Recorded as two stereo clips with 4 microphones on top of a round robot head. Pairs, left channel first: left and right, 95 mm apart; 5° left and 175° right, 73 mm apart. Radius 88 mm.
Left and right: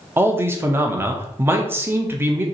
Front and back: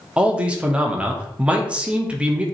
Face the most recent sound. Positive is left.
turn(degrees=-120)